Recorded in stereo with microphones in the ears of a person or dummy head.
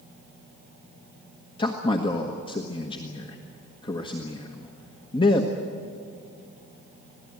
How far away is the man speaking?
About 1.4 m.